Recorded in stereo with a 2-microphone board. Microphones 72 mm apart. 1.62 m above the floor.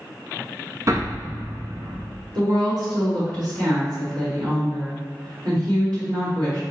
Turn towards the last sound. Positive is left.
turn(degrees=-70)  # may be behind; listen again after turning